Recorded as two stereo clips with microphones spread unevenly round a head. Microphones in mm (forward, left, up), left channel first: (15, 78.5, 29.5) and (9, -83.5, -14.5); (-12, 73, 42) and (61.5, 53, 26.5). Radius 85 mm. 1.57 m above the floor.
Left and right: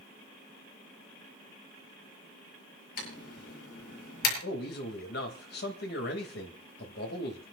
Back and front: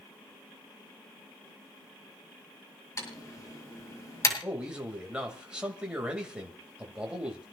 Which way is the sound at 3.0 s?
125° left.